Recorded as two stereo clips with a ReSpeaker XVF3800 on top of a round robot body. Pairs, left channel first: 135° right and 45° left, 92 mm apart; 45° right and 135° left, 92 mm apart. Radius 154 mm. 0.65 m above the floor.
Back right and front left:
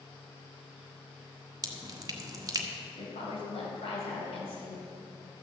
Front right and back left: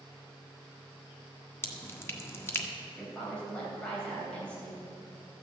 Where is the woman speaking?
125° right, 4 m.